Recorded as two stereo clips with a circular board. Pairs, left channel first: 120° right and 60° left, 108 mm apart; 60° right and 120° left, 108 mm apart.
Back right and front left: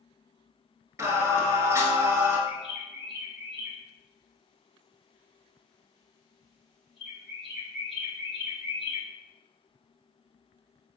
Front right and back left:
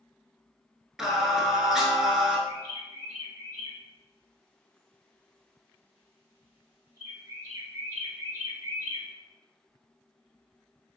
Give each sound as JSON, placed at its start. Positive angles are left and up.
{"t": 1.0, "sound": "singing", "azimuth_deg": 35, "distance_m": 0.8}
{"t": 2.5, "sound": "a bird", "azimuth_deg": 155, "distance_m": 1.8}